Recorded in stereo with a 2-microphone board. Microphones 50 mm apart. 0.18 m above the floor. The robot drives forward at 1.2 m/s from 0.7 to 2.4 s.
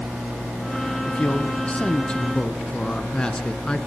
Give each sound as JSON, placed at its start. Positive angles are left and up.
{"t": 1.0, "sound": "a man speaking", "side_deg": 30, "distance_m": 1.2}